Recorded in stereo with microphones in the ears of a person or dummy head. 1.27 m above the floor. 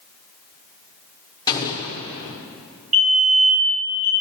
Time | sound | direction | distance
1.5 | an explosion | 25° left (ahead or behind) | 0.7 m
2.9 | a fire alarm | 30° right (ahead or behind) | 2.5 m